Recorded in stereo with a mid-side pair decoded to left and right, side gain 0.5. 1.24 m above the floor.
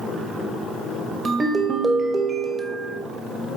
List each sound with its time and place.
1.2 s a ringtone: 35° right, 1.1 m